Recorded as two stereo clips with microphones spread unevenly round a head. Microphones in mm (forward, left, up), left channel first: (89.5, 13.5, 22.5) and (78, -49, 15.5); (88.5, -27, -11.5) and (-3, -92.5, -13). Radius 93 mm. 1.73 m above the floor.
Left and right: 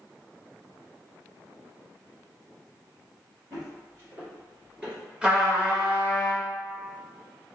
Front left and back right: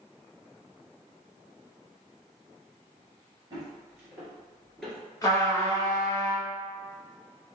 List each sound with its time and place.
3.5 s footsteps: 130° right, 1.9 m; by 5.0 s 25° right, 1.7 m
5.2 s a trumpet: 20° right, 1.2 m